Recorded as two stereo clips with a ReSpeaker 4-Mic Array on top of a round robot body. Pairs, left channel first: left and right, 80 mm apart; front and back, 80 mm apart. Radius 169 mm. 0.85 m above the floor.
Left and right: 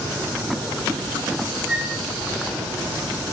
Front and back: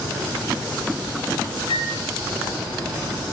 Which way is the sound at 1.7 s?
10° right.